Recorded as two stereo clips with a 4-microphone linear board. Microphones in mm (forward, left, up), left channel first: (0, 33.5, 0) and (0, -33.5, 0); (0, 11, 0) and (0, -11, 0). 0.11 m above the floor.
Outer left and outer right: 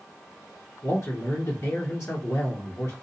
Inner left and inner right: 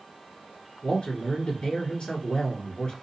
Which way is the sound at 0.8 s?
30° left (ahead or behind).